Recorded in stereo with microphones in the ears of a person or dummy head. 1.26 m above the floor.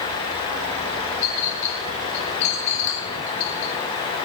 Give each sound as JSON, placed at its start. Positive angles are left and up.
{"t": 1.2, "sound": "a clink", "side_deg": 40, "distance_m": 2.0}